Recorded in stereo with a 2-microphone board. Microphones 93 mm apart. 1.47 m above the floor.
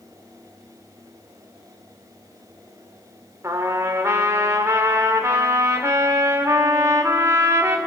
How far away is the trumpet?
About 1.9 m.